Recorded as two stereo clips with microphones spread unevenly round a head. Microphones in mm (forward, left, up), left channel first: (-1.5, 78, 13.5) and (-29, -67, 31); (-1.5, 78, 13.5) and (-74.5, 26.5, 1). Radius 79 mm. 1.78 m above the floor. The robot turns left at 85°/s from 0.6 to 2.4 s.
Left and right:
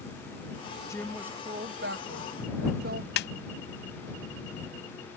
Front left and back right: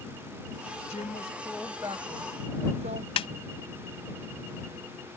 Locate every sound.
0.9 s a woman speaking: 5° left; by 3.1 s 120° right
3.2 s a snare drum: 50° left